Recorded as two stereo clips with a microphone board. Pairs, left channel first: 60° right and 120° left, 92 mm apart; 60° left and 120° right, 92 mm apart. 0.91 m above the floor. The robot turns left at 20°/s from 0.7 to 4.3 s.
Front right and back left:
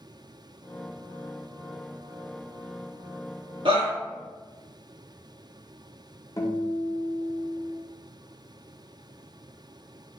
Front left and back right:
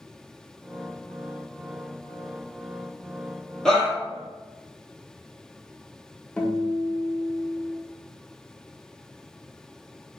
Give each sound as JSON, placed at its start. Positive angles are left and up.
{"t": 3.6, "sound": "a shout", "azimuth_deg": 145, "distance_m": 1.5}
{"t": 6.4, "sound": "a guitar", "azimuth_deg": -15, "distance_m": 0.5}